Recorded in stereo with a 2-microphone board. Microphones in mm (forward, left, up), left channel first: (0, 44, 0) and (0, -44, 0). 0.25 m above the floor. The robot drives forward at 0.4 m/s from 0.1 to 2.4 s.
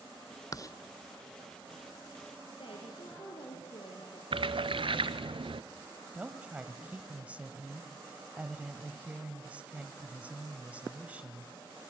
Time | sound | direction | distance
0.5 | writing | 40° left (ahead or behind) | 0.6 m
2.5 | a woman speaking | 65° left (ahead or behind) | 4.5 m
4.3 | a splash | 75° right (ahead or behind) | 0.9 m
6.1 | a woman speaking | 15° right (ahead or behind) | 1.3 m